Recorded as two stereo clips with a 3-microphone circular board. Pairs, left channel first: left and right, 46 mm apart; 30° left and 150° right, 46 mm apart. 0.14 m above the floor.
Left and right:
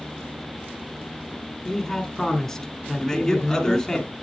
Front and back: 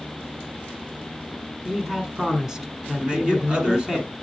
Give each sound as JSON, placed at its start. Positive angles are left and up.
{"t": 1.6, "sound": "a man speaking", "azimuth_deg": 155, "distance_m": 1.2}
{"t": 3.0, "sound": "a man speaking", "azimuth_deg": 160, "distance_m": 1.8}